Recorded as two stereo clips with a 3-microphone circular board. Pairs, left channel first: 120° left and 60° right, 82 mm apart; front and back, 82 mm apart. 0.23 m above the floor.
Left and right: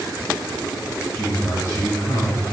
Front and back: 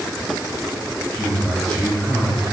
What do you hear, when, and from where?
1.1 s a man speaking: 80° left, 2.5 m